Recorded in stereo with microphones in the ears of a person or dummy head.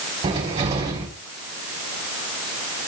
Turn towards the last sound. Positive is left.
turn(degrees=-30)  # may be behind; listen again after turning